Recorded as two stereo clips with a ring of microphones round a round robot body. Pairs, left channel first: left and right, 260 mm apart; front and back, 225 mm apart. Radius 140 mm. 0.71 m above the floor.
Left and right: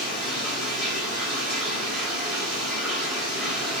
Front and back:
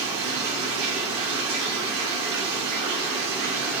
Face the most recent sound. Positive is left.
turn(degrees=180)